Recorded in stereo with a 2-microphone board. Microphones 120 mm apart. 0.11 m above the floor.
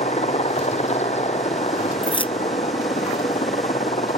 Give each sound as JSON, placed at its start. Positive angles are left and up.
{"t": 0.0, "sound": "a helicopter", "side_deg": 70}
{"t": 2.0, "sound": "keys jangling", "side_deg": 50}